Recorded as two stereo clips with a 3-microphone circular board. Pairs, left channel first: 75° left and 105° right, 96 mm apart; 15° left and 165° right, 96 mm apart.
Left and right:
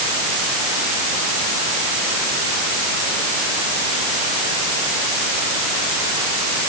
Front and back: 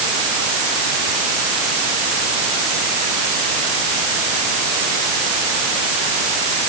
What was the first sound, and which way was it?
Only background noise.